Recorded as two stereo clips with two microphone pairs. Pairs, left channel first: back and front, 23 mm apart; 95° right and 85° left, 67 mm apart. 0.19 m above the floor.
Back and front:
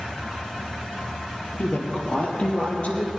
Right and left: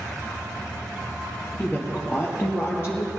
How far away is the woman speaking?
About 3 m.